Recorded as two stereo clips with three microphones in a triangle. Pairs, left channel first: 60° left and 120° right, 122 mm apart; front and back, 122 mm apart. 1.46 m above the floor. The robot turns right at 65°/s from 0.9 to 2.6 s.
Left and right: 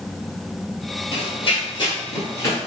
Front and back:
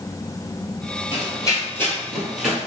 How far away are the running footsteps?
About 2.0 m.